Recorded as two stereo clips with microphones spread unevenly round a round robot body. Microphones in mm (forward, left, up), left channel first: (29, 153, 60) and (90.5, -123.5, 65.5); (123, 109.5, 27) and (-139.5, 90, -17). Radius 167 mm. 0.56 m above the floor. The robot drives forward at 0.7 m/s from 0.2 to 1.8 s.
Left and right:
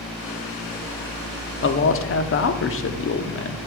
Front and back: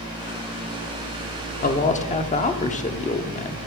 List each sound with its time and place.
1.6 s a man speaking: 60° left, 1.0 m; by 3.6 s 70° left, 0.9 m